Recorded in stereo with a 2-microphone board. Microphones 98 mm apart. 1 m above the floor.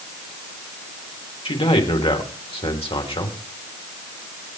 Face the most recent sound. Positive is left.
turn(degrees=60)  # may be behind; listen again after turning